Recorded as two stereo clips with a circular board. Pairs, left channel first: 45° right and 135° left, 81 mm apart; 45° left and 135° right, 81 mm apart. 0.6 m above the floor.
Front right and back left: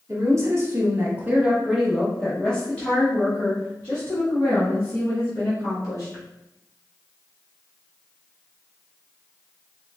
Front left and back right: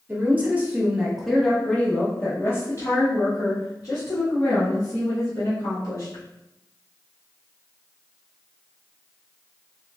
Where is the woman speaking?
170° left, 1.2 m; by 6.2 s 5° left, 2.5 m.